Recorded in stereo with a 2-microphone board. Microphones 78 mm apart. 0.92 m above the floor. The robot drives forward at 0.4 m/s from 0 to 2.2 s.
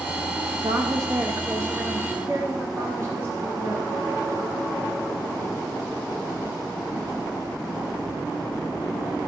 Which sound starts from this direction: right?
A woman speaking, at 0.6 s.